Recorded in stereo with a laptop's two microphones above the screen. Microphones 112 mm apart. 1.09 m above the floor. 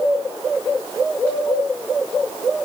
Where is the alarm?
I don't hear an alarm.